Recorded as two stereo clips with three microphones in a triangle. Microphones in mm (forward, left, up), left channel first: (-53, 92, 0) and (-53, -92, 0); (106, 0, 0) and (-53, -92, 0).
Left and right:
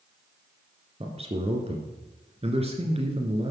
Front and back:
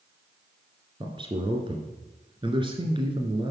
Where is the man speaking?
110° right, 1.9 m.